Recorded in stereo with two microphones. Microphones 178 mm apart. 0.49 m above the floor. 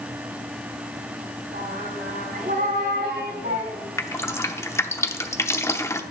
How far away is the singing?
About 2.5 m.